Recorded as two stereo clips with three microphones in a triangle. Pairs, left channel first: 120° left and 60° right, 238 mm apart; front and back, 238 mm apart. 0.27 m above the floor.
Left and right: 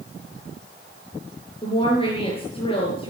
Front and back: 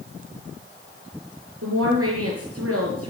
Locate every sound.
1.6 s a woman speaking: 175° right, 5.5 m